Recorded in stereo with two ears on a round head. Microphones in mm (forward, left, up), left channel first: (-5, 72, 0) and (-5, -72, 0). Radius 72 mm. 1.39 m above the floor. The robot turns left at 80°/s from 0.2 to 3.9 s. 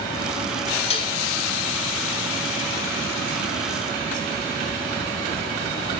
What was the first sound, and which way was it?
Dishes clattering, 40° left (ahead or behind).